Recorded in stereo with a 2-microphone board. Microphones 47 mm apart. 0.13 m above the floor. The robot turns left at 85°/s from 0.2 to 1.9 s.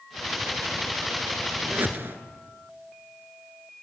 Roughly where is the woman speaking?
No woman speaking in this recording.